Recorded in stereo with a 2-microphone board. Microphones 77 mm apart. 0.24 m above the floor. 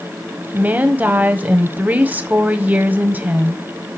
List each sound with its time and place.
0.5 s a woman speaking: 25° right (ahead or behind), 1.1 m